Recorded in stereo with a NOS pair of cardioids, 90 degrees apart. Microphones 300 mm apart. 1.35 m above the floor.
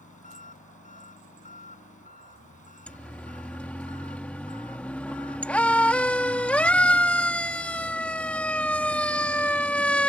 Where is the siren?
5° left.